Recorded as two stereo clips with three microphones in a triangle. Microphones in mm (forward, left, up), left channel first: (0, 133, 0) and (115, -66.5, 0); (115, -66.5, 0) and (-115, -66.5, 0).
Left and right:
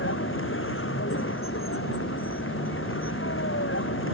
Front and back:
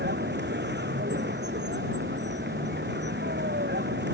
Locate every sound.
0.0 s a vehicle: 140° left